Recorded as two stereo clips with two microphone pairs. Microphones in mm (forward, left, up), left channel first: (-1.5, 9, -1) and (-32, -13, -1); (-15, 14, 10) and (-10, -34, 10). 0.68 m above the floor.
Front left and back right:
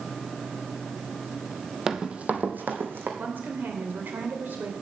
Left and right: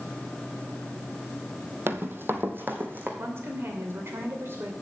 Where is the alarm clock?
I don't hear an alarm clock.